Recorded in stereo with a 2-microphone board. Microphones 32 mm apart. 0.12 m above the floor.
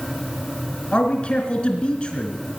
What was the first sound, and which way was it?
A man speaking, 30° left (ahead or behind).